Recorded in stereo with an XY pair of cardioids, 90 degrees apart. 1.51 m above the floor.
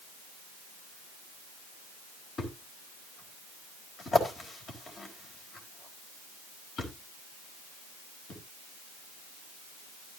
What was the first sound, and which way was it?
A thud, 55° left.